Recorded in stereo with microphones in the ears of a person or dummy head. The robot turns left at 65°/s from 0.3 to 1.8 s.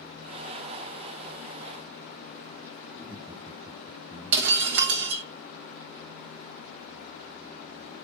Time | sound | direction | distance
2.9 | laughter | 15° right (ahead or behind) | 0.8 m
4.3 | breaking glass | 50° right (ahead or behind) | 1.2 m